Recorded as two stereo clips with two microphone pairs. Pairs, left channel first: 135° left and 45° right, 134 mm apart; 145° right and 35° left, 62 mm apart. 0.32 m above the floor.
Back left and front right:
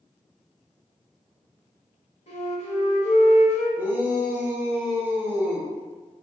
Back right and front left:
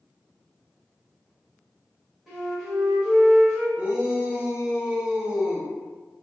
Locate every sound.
2.3 s a flute: 120° left, 1.5 m
3.8 s a shout: 5° left, 0.8 m